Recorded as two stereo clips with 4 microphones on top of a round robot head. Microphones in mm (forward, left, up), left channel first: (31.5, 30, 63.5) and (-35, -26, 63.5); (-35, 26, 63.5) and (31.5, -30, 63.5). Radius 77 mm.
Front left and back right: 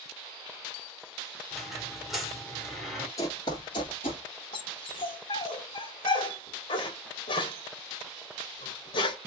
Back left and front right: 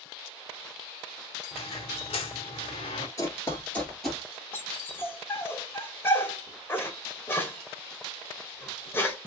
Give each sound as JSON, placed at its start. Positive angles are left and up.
{"t": 1.5, "sound": "a squeak", "azimuth_deg": 130, "distance_m": 1.4}
{"t": 3.2, "sound": "running footsteps", "azimuth_deg": 90, "distance_m": 1.1}
{"t": 4.5, "sound": "a dog barking", "azimuth_deg": 75, "distance_m": 1.1}